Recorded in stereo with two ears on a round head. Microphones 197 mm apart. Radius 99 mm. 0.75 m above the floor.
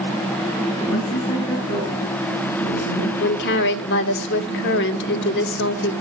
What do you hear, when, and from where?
0.8 s a woman speaking: 20° left (ahead or behind), 9.5 m
3.2 s a woman speaking: 55° left (ahead or behind), 1.7 m